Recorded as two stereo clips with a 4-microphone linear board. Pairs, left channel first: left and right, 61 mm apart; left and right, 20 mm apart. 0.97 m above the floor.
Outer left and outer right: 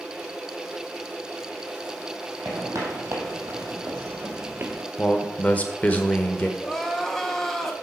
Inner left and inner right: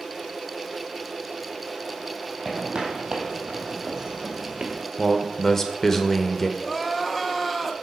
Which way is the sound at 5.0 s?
25° left (ahead or behind).